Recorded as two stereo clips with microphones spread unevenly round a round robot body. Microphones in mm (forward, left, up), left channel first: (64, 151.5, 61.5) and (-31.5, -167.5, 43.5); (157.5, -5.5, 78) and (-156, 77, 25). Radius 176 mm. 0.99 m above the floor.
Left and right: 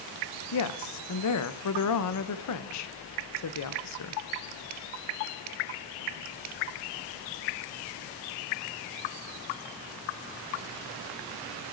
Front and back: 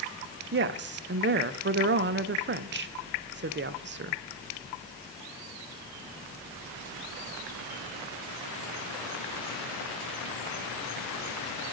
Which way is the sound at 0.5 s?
115° left.